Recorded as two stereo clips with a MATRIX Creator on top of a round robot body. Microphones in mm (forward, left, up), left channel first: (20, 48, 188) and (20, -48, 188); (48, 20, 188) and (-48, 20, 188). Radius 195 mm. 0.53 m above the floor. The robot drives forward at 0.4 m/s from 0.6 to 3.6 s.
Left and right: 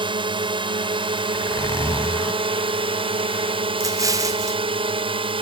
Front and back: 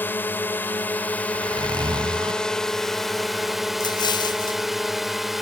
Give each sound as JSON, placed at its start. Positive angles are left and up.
{"t": 0.0, "sound": "a drone", "azimuth_deg": -70}
{"t": 1.3, "sound": "a zipper", "azimuth_deg": 145}
{"t": 3.8, "sound": "an explosion", "azimuth_deg": -40}